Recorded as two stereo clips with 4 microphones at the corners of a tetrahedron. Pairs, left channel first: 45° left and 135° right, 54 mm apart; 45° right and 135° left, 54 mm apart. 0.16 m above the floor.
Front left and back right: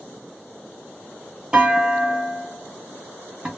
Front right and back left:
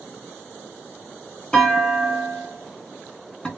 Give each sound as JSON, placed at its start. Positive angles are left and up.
{"t": 1.5, "sound": "a clunk", "azimuth_deg": -85, "distance_m": 1.1}